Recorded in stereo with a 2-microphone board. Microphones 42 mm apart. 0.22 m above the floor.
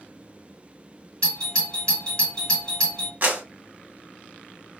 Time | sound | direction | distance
1.2 | a doorbell | 20° left (ahead or behind) | 1.9 m
3.2 | a clap | 40° right (ahead or behind) | 1.1 m